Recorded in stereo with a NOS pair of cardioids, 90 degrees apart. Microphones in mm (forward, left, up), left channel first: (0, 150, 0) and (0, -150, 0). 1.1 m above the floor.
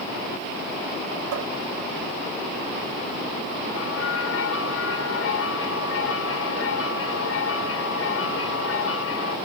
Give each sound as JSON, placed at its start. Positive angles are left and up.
{"t": 1.3, "sound": "a cupboard door", "azimuth_deg": -70}
{"t": 3.7, "sound": "a bell", "azimuth_deg": 50}